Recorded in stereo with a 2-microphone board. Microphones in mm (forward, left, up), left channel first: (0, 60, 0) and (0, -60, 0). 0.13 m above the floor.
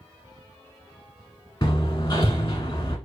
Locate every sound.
1.6 s hammering: 35° left (ahead or behind), 1.1 m